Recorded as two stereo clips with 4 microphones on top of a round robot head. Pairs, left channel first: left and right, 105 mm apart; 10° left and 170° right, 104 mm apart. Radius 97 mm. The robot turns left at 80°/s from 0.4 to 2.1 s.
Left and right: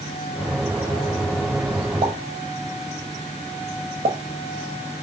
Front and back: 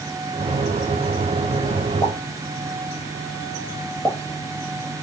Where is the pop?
55° right, 1.5 m; by 4.2 s 65° right, 1.5 m.